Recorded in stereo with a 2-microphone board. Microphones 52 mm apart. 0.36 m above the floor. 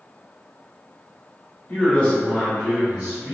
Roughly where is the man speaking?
Left.